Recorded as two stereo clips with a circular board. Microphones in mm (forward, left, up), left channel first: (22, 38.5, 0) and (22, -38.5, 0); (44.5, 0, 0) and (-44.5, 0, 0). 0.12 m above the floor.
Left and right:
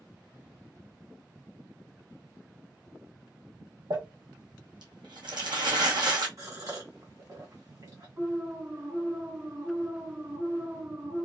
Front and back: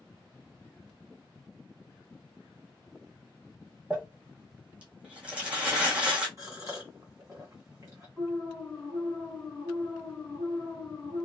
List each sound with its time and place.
3.9 s crumpling: 105° right, 1.2 m
6.4 s a gasp: 130° right, 1.7 m
8.2 s an alarm: 70° right, 2.5 m